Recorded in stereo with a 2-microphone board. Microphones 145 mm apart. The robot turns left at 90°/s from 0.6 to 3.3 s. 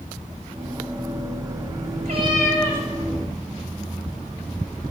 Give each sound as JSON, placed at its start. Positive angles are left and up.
{"t": 2.0, "sound": "a cat meowing", "azimuth_deg": -125, "distance_m": 5.0}